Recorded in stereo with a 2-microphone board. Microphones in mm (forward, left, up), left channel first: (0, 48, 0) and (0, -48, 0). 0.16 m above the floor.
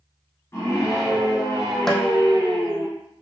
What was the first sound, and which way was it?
A scream, 30° left (ahead or behind).